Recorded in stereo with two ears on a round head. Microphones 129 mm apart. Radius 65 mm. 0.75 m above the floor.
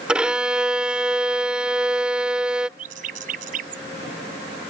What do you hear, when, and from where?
0.1 s a violin: 5° right (ahead or behind)
2.8 s a bird: 60° right (ahead or behind)